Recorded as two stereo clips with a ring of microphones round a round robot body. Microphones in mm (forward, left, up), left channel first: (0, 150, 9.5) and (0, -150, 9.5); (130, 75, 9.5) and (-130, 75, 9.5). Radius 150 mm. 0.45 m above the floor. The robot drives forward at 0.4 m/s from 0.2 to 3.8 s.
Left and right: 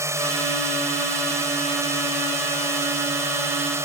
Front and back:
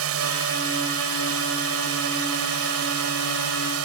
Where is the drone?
170° right.